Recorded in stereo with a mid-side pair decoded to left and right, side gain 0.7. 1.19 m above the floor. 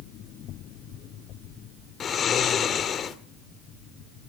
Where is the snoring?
35° left, 1.8 m.